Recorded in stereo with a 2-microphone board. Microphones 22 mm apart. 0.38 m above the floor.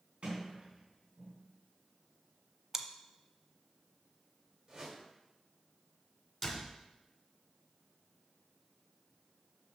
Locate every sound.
0.2 s a sliding door: 70° right (ahead or behind), 4 m
2.7 s chewing: 20° right (ahead or behind), 0.6 m
4.7 s a whoosh: 40° right (ahead or behind), 2 m
6.4 s a door slam: 5° left (ahead or behind), 2 m